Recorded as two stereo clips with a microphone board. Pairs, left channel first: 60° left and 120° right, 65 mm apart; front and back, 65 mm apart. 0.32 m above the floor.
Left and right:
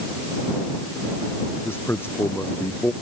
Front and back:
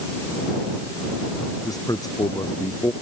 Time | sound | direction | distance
1.6 | a man speaking | 10° left | ?